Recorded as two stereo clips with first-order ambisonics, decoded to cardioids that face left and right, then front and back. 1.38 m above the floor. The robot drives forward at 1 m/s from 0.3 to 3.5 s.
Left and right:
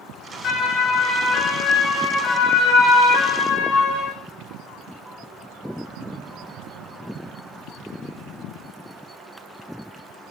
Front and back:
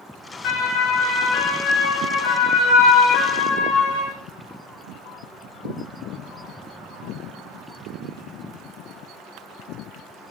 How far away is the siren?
About 6 m.